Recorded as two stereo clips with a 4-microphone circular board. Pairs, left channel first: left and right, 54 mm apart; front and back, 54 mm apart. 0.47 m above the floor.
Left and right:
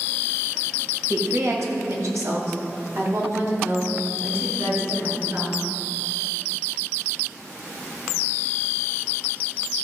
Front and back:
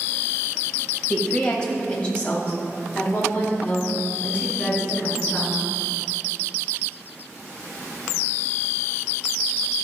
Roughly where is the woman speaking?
Right.